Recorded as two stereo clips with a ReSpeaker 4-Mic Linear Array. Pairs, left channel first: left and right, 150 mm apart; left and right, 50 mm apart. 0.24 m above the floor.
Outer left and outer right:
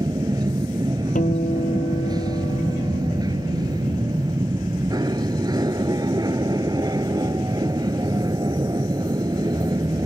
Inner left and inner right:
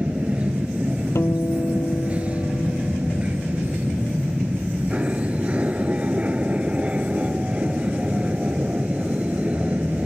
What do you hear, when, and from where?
0.0 s an aircraft: 25° right (ahead or behind)
1.1 s a guitar: 60° left (ahead or behind)